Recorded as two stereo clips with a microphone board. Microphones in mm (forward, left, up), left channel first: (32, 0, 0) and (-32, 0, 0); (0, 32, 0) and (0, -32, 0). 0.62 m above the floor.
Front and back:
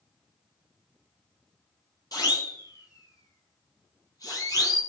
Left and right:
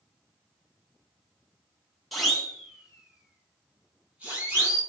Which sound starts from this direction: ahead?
A siren, at 2.1 s.